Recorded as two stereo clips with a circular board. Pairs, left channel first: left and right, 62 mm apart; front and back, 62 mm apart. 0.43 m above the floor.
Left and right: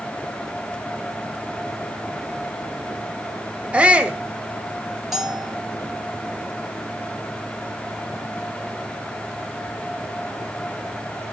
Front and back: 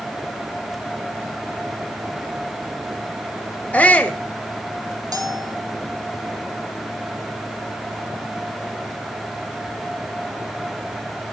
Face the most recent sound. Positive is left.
turn(degrees=-175)